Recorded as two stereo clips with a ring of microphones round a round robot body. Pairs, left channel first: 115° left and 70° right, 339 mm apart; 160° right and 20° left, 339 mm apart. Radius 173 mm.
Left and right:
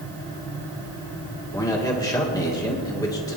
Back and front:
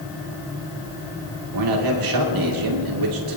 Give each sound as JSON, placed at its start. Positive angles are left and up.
{"t": 1.5, "sound": "a man speaking", "azimuth_deg": 35, "distance_m": 2.0}